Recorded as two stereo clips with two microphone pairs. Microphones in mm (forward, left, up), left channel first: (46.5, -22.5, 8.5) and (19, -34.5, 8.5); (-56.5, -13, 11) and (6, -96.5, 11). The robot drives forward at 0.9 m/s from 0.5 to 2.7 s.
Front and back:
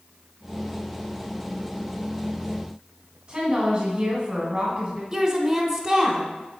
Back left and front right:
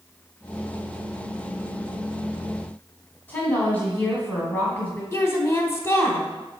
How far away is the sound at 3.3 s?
About 1.2 m.